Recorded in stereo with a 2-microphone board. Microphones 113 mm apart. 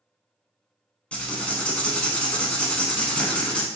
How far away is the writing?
About 0.6 m.